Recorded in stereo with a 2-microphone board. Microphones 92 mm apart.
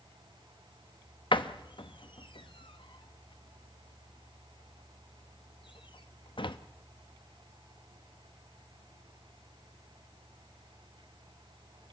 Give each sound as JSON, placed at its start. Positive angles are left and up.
{"t": 1.3, "sound": "a door slam", "side_deg": 65, "distance_m": 0.9}